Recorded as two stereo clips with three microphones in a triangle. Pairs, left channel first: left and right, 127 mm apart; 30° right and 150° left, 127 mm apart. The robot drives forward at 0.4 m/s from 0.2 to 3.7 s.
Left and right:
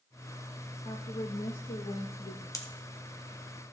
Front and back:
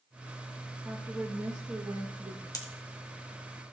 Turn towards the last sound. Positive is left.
turn(degrees=45)